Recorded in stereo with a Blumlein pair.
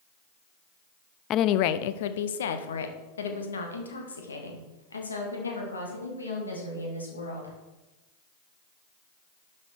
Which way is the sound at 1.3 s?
30° left.